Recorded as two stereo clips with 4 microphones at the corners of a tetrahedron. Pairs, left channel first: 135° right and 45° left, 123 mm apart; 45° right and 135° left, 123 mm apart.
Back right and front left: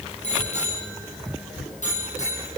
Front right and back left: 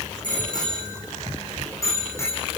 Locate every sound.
0.2 s a bicycle bell: 100° right, 6.5 m; by 2.6 s 115° right, 6.5 m